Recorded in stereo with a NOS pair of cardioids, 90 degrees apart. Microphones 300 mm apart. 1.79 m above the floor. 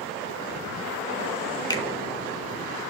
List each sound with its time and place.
1.7 s a finger snap: 15° left, 0.7 m